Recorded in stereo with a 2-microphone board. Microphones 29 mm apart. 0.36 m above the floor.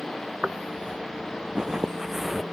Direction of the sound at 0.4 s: 50° right (ahead or behind).